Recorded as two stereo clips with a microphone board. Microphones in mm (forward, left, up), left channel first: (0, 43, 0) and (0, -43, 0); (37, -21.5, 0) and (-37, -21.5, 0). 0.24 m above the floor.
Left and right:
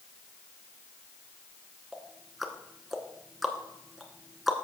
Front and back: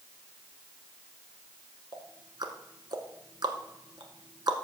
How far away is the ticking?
About 1.1 m.